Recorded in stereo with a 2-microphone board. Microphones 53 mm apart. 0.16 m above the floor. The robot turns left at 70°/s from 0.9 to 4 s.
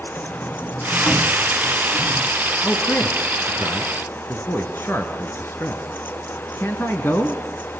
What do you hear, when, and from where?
0.2 s a sliding door: centre (ahead or behind), 1.5 m; by 2.3 s 20° left (ahead or behind), 1.5 m
2.6 s a man speaking: 20° left (ahead or behind), 1.9 m; by 7.4 s 45° left (ahead or behind), 1.9 m